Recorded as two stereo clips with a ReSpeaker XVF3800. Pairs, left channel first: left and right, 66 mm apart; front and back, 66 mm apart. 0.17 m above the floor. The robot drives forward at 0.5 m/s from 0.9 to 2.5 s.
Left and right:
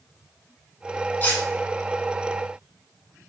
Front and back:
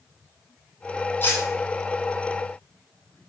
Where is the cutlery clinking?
40° left, 1.1 m; by 1.4 s 45° left, 1.1 m.